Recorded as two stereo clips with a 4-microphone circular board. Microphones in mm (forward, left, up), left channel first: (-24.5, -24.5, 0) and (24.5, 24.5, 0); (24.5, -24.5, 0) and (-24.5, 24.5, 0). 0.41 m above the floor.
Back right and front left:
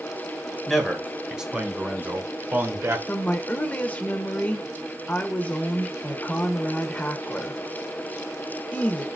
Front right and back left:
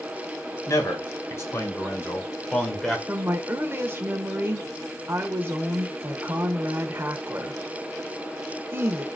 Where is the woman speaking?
170° left, 1.1 m.